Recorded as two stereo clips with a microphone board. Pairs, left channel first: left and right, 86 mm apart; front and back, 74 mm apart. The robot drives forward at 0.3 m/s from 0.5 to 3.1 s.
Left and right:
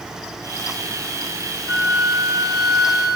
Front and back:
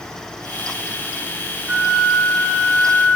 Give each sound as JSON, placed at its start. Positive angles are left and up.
{"t": 1.7, "sound": "a flute", "azimuth_deg": 135, "distance_m": 1.0}